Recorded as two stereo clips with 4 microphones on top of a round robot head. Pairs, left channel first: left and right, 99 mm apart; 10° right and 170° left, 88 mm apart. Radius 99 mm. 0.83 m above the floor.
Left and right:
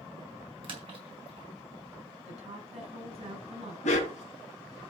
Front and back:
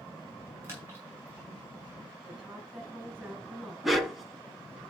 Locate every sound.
0.6 s a splash: 125° right, 6 m
2.2 s a woman speaking: 110° right, 5.5 m
3.8 s a dog barking: 80° left, 2.5 m